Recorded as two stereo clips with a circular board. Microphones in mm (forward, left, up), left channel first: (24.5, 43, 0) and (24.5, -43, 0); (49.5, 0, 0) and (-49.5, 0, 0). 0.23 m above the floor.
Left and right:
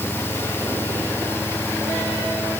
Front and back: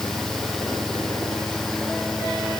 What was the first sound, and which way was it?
Only background noise.